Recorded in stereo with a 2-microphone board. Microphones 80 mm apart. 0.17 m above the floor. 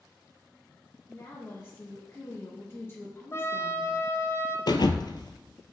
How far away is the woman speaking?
About 2.5 m.